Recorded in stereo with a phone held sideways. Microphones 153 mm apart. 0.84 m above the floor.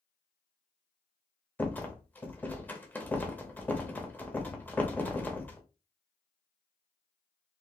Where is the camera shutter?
I don't hear a camera shutter.